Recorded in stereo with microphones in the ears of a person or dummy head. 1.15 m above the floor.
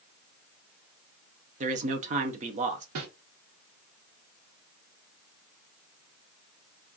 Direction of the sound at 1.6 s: 35° right (ahead or behind).